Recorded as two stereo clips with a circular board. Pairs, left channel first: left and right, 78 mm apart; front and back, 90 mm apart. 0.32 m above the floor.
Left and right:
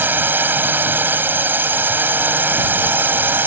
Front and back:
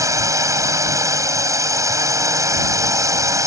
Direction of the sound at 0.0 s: 145° right.